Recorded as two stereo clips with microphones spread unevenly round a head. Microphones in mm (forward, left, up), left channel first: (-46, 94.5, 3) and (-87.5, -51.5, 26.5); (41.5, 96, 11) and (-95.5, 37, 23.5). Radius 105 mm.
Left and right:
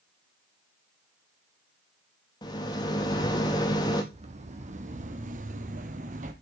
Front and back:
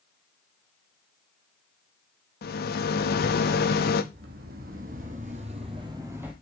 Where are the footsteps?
140° right, 2.5 m; by 6.3 s 80° right, 1.6 m.